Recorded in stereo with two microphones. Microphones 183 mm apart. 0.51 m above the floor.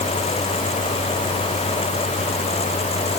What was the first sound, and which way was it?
Only background noise.